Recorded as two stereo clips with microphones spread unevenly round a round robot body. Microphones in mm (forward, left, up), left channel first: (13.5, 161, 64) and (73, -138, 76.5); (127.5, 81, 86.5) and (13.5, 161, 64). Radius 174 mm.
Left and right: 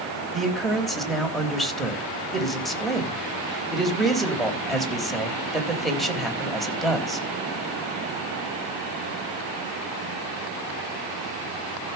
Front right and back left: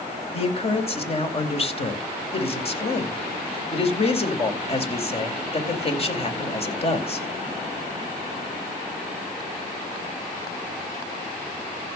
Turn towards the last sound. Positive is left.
turn(degrees=15)